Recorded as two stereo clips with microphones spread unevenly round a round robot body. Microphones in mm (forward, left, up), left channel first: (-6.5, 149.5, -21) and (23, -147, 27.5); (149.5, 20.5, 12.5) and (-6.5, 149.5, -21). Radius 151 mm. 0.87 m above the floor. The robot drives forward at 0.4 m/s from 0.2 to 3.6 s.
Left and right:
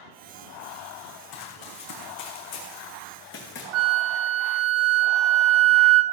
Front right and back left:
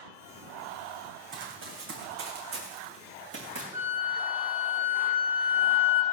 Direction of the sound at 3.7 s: 130° right.